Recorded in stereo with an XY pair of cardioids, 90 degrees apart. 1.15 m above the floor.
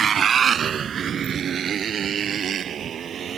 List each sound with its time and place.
0.0 s a motorcycle: 55° right; by 3.4 s 65° right